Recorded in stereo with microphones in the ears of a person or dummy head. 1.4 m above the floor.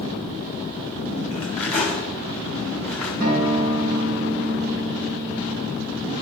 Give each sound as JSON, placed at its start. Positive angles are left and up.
{"t": 1.3, "sound": "cutlery clinking", "side_deg": 10, "distance_m": 3.0}
{"t": 3.2, "sound": "a guitar", "side_deg": -55, "distance_m": 4.0}